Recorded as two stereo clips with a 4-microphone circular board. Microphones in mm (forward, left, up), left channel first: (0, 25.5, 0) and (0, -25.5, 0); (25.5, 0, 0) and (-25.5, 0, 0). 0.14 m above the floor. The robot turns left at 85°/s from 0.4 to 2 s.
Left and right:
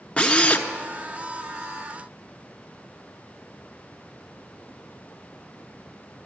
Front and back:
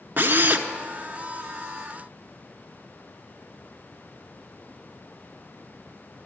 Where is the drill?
145° left, 0.7 m; by 0.7 s 125° left, 0.7 m.